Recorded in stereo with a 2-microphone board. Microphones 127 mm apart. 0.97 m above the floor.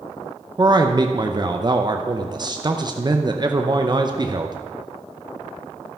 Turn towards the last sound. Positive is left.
turn(degrees=-35)  # may be behind; listen again after turning